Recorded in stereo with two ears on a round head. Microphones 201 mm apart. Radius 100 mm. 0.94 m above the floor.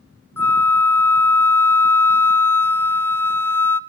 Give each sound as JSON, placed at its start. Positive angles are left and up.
{"t": 0.4, "sound": "a flute", "side_deg": 10, "distance_m": 0.5}